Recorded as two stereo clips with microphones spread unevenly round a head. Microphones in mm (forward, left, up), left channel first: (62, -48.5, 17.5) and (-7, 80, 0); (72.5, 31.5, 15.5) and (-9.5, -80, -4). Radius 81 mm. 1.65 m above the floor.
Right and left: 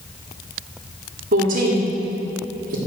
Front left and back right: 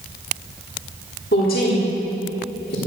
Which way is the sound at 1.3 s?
90° left.